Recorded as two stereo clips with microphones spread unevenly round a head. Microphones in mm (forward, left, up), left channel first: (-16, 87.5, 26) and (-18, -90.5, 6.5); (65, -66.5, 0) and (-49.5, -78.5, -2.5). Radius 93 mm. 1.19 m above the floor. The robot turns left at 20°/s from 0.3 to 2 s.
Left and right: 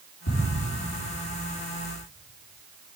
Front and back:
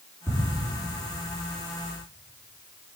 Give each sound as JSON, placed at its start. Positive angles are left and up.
{"t": 0.3, "sound": "ticking", "azimuth_deg": 100, "distance_m": 3.0}